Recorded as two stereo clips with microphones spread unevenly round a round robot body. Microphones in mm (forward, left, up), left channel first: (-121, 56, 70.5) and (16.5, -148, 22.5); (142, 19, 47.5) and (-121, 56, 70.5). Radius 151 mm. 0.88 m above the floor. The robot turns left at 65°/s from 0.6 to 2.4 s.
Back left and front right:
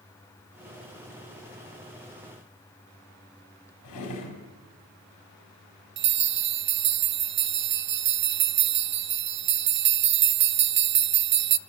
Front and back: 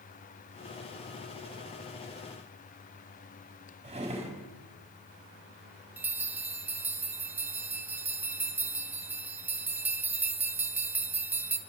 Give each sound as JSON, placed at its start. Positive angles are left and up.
{"t": 3.8, "sound": "a drawer", "azimuth_deg": 105, "distance_m": 4.0}
{"t": 6.0, "sound": "a bell", "azimuth_deg": -105, "distance_m": 0.7}